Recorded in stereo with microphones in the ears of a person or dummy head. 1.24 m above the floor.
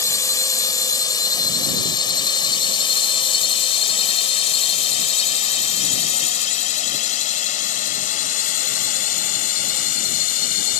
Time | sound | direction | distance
0.0 | a drone | 20° left (ahead or behind) | ?